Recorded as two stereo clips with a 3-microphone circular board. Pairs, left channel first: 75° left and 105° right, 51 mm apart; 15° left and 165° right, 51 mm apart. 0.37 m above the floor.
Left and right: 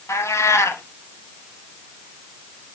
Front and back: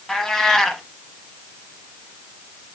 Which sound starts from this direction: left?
A cat meowing, at 0.1 s.